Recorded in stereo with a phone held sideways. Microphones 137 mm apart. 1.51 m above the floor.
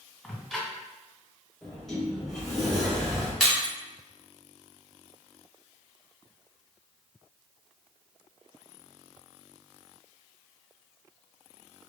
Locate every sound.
0.2 s ticking: centre (ahead or behind), 1.7 m
1.6 s a sliding door: centre (ahead or behind), 1.2 m
3.4 s breaking glass: 5° left (ahead or behind), 1.7 m